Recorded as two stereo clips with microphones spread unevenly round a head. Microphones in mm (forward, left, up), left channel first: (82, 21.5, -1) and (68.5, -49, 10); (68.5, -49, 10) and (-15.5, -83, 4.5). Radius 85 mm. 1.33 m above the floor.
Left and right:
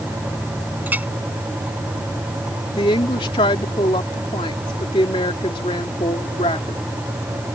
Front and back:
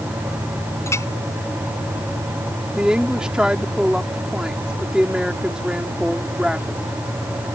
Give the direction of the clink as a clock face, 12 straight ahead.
1 o'clock.